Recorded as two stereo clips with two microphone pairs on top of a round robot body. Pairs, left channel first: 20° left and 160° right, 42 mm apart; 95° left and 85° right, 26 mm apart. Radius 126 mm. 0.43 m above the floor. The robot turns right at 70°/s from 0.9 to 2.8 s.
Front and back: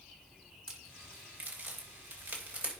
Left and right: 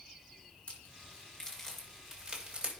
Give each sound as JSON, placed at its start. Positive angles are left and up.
{"t": 0.7, "sound": "a crack", "azimuth_deg": 130, "distance_m": 3.5}